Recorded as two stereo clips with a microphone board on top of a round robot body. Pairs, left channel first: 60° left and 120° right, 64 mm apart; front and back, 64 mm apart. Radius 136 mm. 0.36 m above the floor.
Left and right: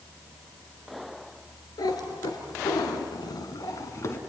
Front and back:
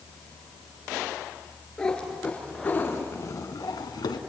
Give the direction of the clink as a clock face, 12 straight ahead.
No clink in this recording.